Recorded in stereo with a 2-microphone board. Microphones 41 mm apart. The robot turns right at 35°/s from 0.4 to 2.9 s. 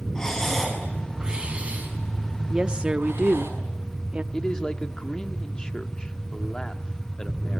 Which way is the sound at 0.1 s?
15° left (ahead or behind).